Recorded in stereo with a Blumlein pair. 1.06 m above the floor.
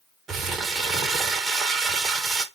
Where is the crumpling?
20° right, 0.8 m.